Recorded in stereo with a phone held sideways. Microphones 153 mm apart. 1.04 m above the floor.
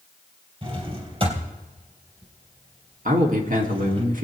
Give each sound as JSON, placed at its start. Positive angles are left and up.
{"t": 0.6, "sound": "a drawer", "side_deg": -40, "distance_m": 3.0}
{"t": 3.0, "sound": "a man speaking", "side_deg": -60, "distance_m": 2.0}